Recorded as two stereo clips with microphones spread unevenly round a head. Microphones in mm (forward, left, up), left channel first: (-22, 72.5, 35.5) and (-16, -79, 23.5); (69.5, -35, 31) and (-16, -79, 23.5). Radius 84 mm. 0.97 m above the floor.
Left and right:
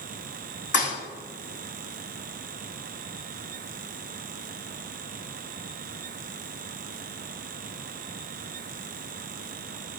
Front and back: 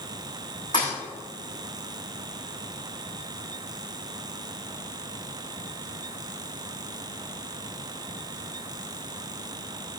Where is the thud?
90° left, 4 m.